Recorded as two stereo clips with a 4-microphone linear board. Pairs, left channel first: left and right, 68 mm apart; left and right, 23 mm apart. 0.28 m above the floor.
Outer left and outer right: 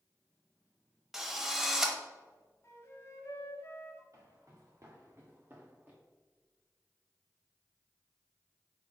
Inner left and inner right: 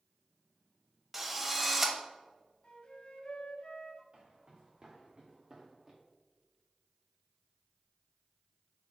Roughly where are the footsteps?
Right.